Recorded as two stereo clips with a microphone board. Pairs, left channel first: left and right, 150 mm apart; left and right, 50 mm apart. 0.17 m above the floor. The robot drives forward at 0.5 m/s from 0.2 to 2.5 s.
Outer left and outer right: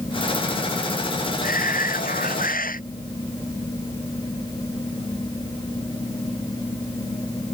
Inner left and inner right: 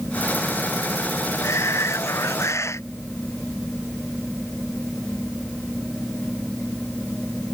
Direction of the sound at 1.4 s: 80° left.